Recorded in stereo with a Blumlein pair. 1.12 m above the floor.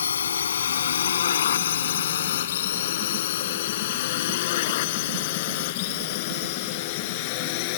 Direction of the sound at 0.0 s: 70° left.